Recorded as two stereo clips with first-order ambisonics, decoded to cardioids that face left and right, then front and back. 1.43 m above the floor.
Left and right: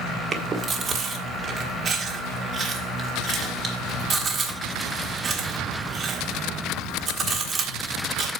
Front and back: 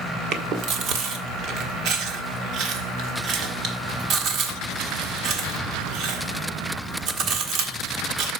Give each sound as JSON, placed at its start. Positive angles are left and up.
{"t": 0.3, "sound": "chewing", "azimuth_deg": -150, "distance_m": 1.4}